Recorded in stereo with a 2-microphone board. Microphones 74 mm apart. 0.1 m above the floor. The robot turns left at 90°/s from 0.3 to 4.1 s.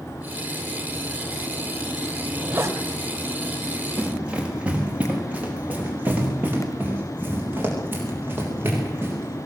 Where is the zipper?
5° left, 3 m; by 2.8 s 50° right, 3 m.